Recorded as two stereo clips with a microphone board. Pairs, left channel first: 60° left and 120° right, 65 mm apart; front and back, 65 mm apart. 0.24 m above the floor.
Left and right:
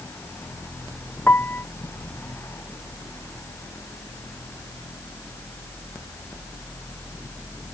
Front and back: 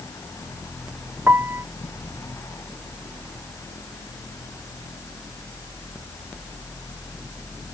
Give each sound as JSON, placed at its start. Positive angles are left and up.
{"t": 1.3, "sound": "a piano", "azimuth_deg": 125}